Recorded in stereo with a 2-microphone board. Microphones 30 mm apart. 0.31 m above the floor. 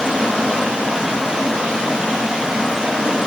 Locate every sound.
0.0 s running water: 20° right (ahead or behind), 1.2 m